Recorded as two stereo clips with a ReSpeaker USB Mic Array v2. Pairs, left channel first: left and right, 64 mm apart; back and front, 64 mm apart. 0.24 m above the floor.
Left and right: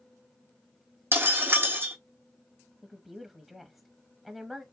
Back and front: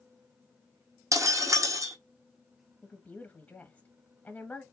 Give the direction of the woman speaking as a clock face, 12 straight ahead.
6 o'clock.